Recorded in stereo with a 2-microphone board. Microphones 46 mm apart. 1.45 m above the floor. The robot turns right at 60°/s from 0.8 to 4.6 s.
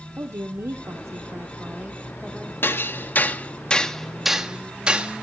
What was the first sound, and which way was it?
A woman speaking, 95° right.